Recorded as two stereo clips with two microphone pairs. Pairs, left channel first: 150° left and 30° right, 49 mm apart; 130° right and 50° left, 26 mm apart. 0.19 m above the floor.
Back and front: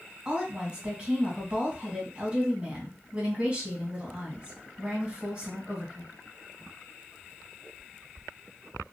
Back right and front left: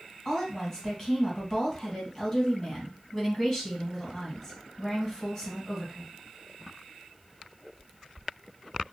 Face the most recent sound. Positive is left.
turn(degrees=-60)